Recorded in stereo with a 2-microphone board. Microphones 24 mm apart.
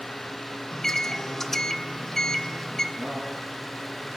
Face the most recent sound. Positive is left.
turn(degrees=-65)  # may be behind; listen again after turning